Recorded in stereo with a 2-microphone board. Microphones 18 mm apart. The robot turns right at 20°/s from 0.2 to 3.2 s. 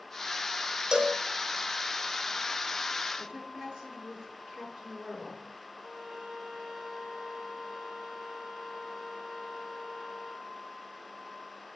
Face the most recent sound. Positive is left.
turn(degrees=-60)  # may be behind; listen again after turning